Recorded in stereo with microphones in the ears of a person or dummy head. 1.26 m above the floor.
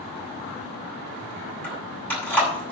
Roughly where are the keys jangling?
Centre.